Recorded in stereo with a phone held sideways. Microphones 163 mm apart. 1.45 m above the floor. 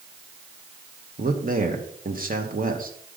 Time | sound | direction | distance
1.2 | a man speaking | 55° right (ahead or behind) | 1.2 m